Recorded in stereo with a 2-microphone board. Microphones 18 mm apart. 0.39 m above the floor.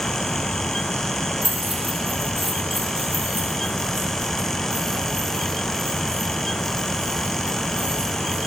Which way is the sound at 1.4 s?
30° right (ahead or behind).